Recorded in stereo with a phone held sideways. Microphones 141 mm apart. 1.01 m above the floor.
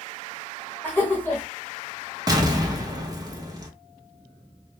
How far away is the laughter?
About 0.8 m.